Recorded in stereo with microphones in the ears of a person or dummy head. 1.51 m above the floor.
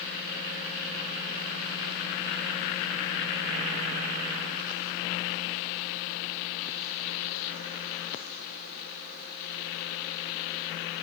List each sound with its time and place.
Only background noise.